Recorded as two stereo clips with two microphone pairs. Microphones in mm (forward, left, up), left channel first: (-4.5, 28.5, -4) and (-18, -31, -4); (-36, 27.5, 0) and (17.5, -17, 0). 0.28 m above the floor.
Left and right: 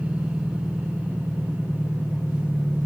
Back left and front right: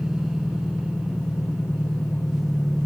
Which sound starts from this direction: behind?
An engine running, at 0.0 s.